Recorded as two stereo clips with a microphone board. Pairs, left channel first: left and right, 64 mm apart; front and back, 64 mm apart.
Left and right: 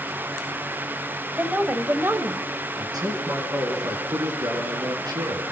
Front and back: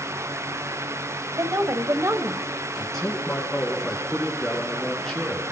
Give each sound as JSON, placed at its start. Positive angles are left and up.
{"t": 1.4, "sound": "a woman speaking", "azimuth_deg": -155, "distance_m": 2.5}
{"t": 2.8, "sound": "a man speaking", "azimuth_deg": -80, "distance_m": 7.0}